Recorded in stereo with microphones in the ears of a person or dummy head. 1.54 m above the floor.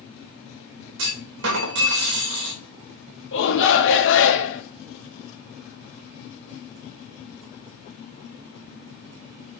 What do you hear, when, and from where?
1.0 s a clunk: 75° right (ahead or behind), 3 m
3.3 s a shout: 75° left (ahead or behind), 2.5 m